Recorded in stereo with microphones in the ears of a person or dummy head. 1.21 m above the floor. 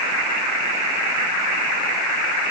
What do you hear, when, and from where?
Only background noise.